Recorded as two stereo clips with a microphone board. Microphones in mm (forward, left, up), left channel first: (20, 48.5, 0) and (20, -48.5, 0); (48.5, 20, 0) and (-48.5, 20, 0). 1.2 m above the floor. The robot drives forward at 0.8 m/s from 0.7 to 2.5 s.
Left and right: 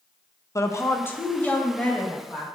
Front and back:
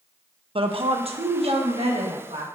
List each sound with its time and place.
0.6 s a woman speaking: 150° left, 0.7 m; by 2.5 s 170° left, 2 m